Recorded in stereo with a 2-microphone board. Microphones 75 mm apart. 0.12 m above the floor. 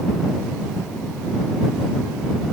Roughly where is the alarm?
I don't hear an alarm.